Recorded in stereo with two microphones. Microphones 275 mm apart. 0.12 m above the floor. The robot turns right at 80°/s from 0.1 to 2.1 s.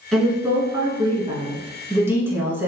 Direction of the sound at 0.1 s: Centre (ahead or behind).